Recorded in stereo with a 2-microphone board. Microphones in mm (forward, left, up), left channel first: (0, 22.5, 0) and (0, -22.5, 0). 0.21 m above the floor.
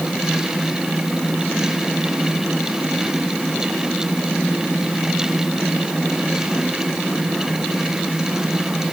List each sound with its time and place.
Only background noise.